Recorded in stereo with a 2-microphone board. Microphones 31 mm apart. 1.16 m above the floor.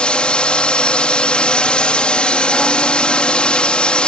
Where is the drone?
35° left (ahead or behind).